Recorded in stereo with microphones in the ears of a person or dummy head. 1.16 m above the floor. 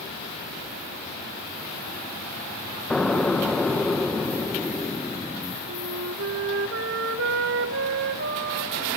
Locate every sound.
2.9 s an explosion: 5° left (ahead or behind), 1.2 m
5.7 s a flute: 60° right (ahead or behind), 1.2 m